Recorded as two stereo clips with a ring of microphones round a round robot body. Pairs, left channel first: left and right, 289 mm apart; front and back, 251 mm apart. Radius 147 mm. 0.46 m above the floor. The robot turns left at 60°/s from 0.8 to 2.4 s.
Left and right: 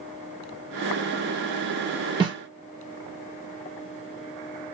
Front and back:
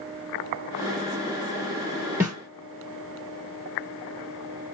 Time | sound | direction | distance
2.2 | a snare drum | 120° right | 1.3 m